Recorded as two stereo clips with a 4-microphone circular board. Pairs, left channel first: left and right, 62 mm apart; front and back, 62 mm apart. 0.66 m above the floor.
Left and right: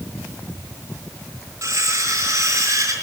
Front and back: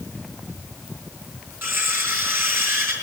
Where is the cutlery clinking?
130° right, 6 m.